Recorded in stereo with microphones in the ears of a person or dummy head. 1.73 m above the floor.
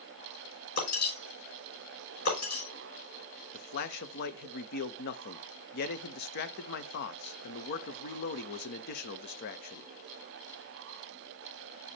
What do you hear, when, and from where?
0.8 s breaking glass: 50° left (ahead or behind), 5 m
3.5 s a man speaking: 50° left (ahead or behind), 0.7 m